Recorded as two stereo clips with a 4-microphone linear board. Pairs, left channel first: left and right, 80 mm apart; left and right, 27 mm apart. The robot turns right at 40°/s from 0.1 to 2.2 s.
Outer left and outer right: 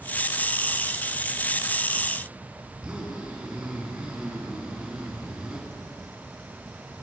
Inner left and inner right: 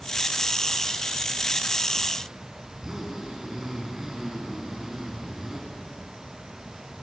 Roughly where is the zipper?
Centre.